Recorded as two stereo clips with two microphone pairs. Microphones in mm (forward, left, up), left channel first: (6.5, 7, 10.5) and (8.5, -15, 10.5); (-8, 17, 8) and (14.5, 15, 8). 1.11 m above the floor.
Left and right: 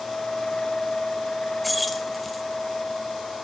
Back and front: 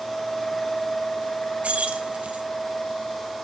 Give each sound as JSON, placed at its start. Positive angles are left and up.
{"t": 1.6, "sound": "keys jangling", "azimuth_deg": 10, "distance_m": 0.6}